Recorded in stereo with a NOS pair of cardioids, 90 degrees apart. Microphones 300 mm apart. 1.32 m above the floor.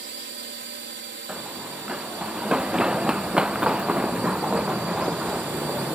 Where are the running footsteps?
5° right.